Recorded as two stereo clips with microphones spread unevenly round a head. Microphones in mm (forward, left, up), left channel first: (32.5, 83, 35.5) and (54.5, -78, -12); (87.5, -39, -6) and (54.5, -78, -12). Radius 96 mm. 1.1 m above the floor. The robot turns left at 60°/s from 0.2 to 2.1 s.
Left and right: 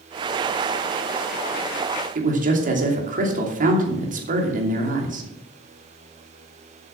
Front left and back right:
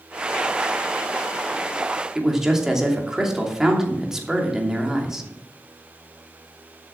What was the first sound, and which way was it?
A man speaking, 50° right.